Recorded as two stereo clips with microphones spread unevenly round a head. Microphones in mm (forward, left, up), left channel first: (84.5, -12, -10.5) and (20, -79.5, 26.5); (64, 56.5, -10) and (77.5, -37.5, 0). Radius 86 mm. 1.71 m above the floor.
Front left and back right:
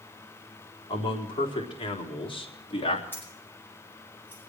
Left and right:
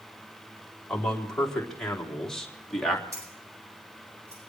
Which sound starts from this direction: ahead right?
Keys jangling, at 3.1 s.